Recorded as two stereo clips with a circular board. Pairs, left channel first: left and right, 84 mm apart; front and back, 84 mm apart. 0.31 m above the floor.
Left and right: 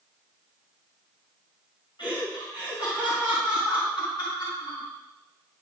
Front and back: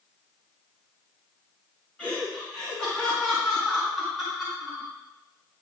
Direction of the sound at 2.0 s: 75° left.